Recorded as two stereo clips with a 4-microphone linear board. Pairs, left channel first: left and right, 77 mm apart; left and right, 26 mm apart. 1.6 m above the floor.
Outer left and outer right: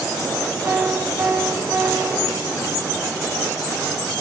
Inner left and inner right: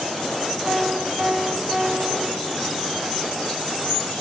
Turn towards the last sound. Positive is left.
turn(degrees=-30)  # may be behind; listen again after turning